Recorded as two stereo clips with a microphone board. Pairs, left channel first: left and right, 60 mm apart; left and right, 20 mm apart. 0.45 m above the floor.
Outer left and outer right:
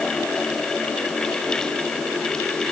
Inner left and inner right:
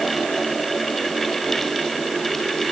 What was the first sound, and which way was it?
Only background noise.